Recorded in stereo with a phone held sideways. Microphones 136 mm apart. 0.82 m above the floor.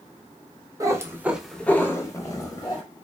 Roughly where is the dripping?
No dripping in this recording.